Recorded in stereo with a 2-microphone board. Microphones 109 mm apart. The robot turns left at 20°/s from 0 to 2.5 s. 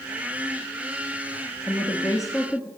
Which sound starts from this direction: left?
A woman speaking, at 1.7 s.